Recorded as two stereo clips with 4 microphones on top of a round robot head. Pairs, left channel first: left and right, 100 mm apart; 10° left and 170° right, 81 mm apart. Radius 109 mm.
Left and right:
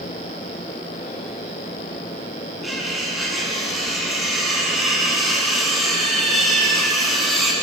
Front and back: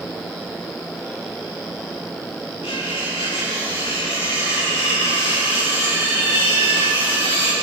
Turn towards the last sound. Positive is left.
turn(degrees=0)